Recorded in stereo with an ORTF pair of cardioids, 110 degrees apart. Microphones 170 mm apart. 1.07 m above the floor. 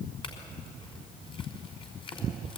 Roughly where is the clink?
Ahead left.